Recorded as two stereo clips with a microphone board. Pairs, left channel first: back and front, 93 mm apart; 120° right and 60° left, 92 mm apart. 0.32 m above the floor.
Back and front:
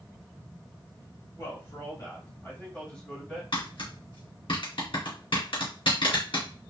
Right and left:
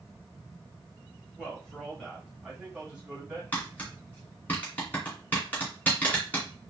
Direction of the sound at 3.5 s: 170° left.